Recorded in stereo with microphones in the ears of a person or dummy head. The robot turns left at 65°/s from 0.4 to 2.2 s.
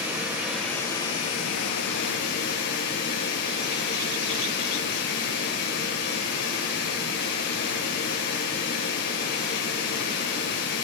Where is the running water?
175° right, 2.5 m; by 10.8 s 70° left, 2.5 m.